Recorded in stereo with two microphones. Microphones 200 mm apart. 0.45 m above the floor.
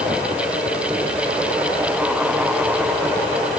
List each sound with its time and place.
Only background noise.